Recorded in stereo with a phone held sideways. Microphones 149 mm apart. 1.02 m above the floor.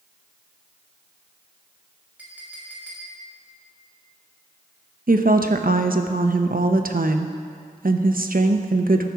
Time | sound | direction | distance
2.2 | a clink | 10° right (ahead or behind) | 2.5 m
5.1 | a woman speaking | 70° right (ahead or behind) | 0.7 m